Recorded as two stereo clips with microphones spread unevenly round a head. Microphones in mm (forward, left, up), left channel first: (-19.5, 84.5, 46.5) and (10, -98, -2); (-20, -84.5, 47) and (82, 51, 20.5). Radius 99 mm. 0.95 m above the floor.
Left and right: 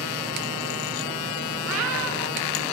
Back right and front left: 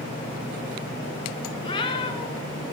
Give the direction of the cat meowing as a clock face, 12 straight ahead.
2 o'clock.